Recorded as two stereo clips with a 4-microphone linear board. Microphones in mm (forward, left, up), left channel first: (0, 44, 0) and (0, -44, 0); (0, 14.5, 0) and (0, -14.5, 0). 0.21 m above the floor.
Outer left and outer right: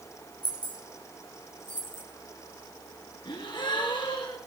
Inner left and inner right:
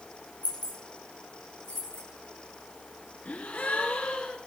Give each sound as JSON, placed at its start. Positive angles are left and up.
{"t": 0.4, "sound": "keys jangling", "side_deg": 55, "distance_m": 3.5}
{"t": 3.2, "sound": "a gasp", "side_deg": 60, "distance_m": 2.0}